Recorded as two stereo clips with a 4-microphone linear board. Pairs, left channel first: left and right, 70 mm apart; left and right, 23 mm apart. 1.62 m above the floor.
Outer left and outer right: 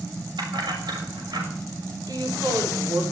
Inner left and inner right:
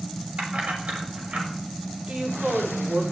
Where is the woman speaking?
65° right (ahead or behind), 6 m.